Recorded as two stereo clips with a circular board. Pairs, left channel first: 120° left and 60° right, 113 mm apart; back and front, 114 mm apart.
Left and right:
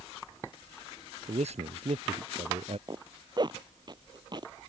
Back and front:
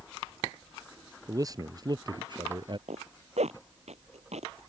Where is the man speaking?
55° right; by 2.8 s 40° right.